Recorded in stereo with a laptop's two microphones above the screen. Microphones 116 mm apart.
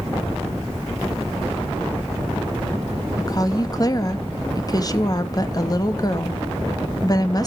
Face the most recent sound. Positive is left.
turn(degrees=35)  # may be behind; listen again after turning